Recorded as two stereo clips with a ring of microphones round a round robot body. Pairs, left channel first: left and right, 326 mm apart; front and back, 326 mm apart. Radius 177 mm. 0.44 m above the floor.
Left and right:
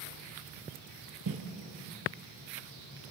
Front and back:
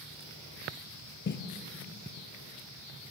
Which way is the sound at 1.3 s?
50° right.